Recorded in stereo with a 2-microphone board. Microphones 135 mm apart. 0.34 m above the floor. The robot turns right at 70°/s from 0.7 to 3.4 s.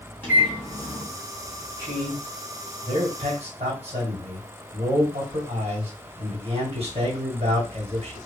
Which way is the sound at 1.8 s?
20° left (ahead or behind).